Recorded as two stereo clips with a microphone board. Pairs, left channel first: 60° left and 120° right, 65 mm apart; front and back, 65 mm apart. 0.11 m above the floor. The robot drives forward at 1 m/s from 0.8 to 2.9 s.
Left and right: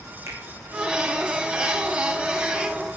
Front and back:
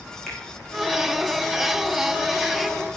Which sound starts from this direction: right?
A finger snap, at 0.3 s.